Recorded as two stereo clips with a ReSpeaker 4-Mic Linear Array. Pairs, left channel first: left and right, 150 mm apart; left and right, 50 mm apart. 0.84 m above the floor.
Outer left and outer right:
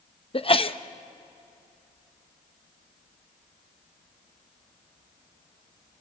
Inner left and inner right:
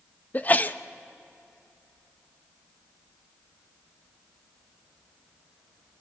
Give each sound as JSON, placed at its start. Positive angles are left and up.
{"t": 0.3, "sound": "a sneeze", "side_deg": 35, "distance_m": 0.7}